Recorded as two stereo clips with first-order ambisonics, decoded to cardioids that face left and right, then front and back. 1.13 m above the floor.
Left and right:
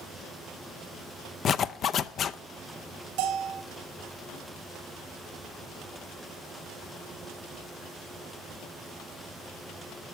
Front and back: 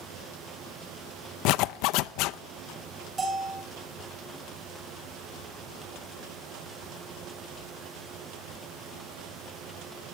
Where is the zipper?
30° left, 0.6 m.